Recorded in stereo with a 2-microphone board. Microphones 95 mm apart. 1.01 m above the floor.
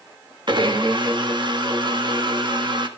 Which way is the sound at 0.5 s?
55° right (ahead or behind).